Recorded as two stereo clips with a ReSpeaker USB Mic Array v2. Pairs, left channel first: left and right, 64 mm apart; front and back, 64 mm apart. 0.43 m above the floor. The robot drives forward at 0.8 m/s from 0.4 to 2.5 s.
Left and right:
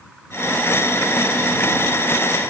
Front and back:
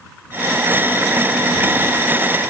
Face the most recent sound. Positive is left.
No sound to turn to.